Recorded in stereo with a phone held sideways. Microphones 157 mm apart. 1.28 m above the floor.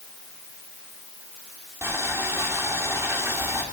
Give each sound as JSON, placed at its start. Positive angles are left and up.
{"t": 1.8, "sound": "boiling", "side_deg": -15, "distance_m": 3.5}